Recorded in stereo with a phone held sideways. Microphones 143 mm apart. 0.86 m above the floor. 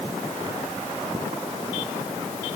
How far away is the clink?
I don't hear a clink.